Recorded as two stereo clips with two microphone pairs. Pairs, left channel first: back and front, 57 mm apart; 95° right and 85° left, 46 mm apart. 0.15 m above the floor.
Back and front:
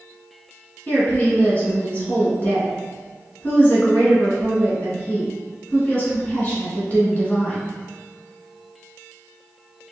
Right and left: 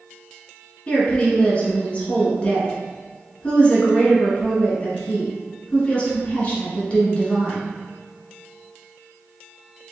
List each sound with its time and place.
0.9 s a woman speaking: 140° right, 1.6 m